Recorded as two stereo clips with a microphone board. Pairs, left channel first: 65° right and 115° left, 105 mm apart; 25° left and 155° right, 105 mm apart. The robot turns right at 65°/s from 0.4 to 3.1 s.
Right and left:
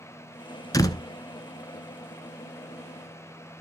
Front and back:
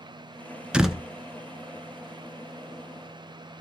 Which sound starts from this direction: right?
A door slam, at 0.7 s.